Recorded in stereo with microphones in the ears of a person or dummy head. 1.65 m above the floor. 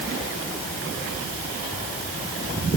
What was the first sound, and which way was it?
Only background noise.